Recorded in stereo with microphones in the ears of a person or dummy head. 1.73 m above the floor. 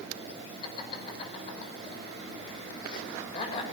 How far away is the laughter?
About 6 m.